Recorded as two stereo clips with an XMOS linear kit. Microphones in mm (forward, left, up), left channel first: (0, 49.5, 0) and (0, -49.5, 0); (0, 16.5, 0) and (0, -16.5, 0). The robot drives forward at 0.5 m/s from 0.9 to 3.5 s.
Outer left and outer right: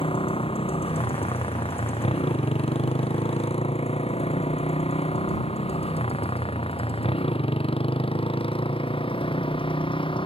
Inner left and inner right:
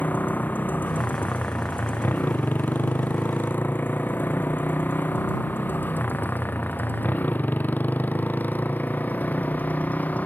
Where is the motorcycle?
65° left (ahead or behind); by 10.3 s 60° left (ahead or behind).